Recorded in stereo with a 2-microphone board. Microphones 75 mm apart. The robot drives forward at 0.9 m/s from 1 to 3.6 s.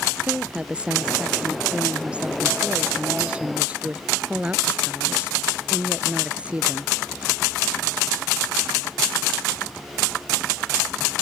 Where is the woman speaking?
15° right (ahead or behind).